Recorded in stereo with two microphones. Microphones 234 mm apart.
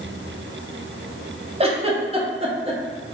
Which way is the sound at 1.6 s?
25° right (ahead or behind).